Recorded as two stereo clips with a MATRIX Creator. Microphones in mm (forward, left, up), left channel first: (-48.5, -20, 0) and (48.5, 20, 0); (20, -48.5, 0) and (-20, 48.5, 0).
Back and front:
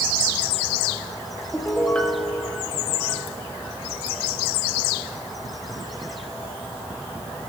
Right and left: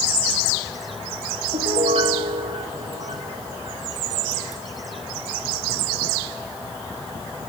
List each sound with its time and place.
1.5 s a piano: 125° left, 1.3 m